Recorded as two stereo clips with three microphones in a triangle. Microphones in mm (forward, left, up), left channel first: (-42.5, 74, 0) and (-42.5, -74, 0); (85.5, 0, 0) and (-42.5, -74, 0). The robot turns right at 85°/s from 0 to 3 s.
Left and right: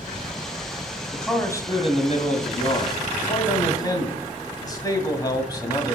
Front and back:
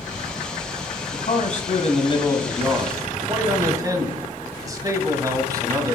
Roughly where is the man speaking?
Ahead.